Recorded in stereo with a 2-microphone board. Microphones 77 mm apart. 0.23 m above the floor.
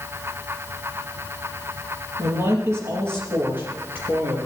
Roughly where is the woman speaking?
Right.